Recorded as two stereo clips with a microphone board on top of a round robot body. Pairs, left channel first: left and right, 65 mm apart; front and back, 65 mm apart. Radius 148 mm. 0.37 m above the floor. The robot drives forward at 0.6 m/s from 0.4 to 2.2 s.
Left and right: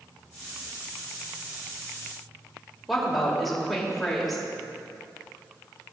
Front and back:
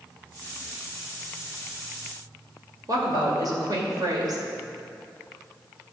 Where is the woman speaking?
Straight behind, 2.5 m.